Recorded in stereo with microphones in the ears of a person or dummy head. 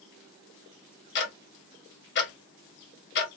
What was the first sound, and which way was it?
Ticking, 50° left (ahead or behind).